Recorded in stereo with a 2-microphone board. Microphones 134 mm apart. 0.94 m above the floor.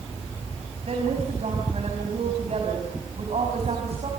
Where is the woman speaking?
55° right (ahead or behind), 5.5 m.